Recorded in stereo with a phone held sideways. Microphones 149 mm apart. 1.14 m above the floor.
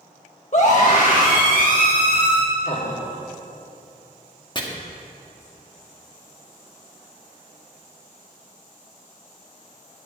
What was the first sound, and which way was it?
A scream, 50° left (ahead or behind).